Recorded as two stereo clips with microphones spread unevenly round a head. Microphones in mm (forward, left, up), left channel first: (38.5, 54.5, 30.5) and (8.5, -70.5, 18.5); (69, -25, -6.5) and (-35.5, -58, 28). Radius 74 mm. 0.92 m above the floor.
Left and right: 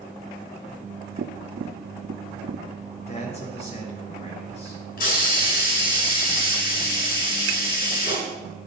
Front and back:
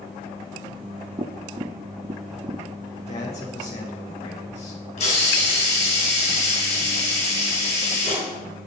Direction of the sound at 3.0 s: 40° left.